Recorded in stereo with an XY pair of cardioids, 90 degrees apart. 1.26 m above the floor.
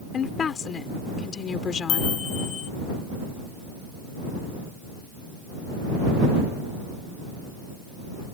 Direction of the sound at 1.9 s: 65° left.